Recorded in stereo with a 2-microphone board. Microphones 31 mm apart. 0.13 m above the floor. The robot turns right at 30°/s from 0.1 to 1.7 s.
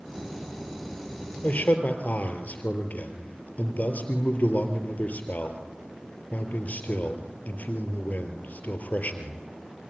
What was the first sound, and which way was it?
A man speaking, 60° left (ahead or behind).